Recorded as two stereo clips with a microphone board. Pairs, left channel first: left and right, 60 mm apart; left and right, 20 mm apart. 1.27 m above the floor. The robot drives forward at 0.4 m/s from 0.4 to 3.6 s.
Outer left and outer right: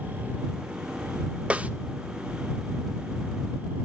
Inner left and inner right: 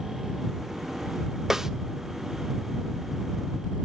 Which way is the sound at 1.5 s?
20° right (ahead or behind).